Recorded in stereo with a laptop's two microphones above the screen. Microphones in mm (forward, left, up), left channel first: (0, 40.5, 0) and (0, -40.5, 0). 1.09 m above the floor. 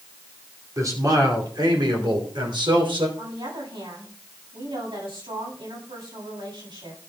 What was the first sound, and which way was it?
A man speaking, 45° right (ahead or behind).